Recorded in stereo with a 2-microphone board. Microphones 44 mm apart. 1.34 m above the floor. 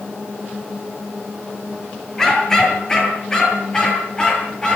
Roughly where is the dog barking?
Centre.